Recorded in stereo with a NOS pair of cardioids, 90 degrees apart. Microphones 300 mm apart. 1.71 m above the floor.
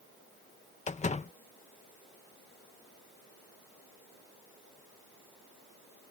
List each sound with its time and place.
0.9 s a door slam: 25° left